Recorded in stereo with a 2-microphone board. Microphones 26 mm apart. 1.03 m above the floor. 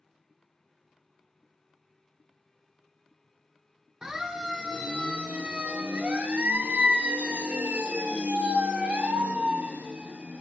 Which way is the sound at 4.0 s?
25° right (ahead or behind).